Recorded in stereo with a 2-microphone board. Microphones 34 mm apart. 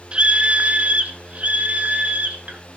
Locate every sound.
0.1 s a scream: 30° right (ahead or behind), 0.6 m; by 2.6 s 45° right (ahead or behind), 2.0 m